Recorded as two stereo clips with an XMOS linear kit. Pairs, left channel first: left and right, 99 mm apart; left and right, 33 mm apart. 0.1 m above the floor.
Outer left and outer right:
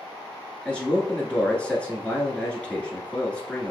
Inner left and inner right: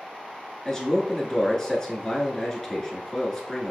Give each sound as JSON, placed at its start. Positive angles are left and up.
{"t": 0.7, "sound": "a man speaking", "side_deg": 15, "distance_m": 1.1}